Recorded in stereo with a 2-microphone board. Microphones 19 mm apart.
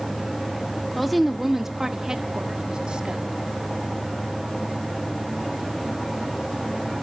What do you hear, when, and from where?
0.9 s a woman speaking: centre (ahead or behind), 1.6 m; by 3.2 s 55° right (ahead or behind), 1.8 m